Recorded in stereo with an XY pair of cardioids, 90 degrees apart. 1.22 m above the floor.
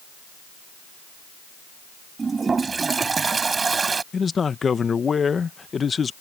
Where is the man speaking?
40° left.